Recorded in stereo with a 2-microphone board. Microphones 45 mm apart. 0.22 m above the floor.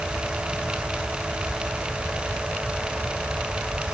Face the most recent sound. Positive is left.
No sound to turn to.